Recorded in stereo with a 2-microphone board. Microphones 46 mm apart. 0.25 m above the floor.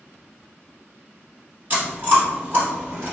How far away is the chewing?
About 1.9 m.